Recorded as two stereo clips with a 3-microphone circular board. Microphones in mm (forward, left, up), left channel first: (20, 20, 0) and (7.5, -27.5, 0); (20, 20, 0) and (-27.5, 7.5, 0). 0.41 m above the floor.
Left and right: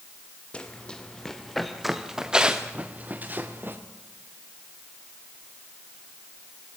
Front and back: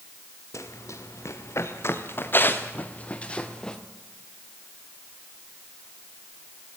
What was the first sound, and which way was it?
Running footsteps, 5° left.